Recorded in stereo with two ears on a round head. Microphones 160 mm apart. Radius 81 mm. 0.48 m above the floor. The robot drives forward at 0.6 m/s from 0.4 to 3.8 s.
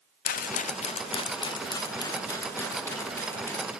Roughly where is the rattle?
Left.